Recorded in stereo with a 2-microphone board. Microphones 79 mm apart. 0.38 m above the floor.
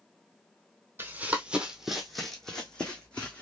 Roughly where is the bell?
No bell in this recording.